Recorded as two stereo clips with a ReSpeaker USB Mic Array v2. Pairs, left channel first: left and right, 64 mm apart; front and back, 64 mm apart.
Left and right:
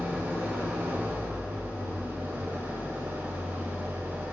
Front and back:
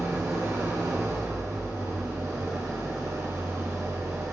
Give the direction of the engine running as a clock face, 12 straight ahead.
5 o'clock.